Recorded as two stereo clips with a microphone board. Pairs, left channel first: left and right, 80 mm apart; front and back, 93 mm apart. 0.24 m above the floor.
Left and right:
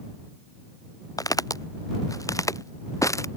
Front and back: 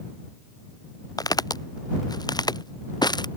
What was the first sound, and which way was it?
Footsteps, 45° left.